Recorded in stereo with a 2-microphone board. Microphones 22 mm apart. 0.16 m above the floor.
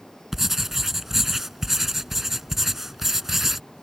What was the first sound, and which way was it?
Writing, 15° right (ahead or behind).